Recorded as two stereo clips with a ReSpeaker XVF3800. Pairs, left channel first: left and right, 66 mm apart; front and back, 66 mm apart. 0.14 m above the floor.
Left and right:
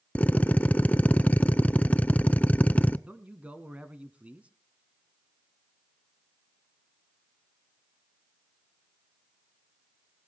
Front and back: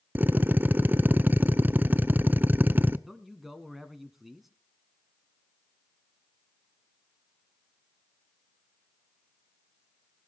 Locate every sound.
0.1 s a drill: 140° left, 0.5 m
3.1 s a man speaking: 100° right, 1.2 m